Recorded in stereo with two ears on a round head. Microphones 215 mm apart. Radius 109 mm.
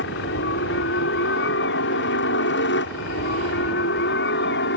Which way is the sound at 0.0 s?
55° left (ahead or behind).